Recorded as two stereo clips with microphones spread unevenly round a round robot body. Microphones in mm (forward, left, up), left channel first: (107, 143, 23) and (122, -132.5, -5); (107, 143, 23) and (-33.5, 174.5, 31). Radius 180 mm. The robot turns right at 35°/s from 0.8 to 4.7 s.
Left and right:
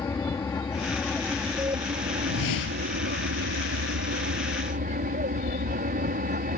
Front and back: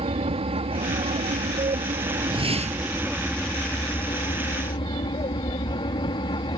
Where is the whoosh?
110° left; by 2.9 s 135° left.